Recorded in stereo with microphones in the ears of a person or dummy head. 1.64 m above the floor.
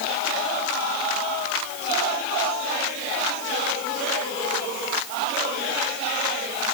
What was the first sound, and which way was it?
Only background noise.